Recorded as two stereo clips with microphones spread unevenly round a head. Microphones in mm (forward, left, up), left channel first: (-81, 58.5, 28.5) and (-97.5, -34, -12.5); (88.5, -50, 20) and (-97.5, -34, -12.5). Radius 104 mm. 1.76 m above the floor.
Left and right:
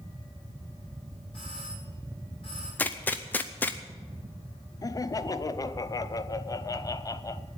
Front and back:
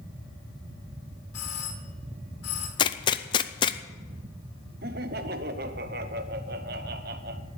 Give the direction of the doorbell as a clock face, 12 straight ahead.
12 o'clock.